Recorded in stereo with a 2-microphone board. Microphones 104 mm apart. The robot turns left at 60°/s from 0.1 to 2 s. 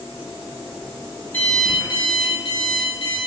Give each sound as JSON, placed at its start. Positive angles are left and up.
{"t": 1.3, "sound": "an alarm clock", "azimuth_deg": 160, "distance_m": 0.7}